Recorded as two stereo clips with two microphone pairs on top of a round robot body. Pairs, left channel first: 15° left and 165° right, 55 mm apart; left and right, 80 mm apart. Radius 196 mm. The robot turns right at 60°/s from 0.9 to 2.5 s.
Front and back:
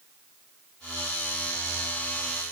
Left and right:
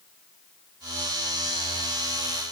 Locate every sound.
Only background noise.